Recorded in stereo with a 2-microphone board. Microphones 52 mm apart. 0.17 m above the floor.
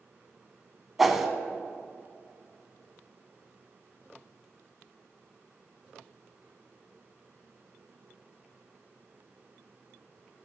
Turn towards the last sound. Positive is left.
turn(degrees=-5)  # may be behind; listen again after turning